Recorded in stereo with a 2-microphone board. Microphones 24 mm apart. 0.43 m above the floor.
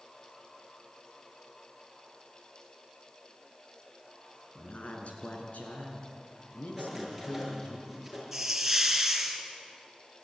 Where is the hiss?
10° right (ahead or behind), 3 m.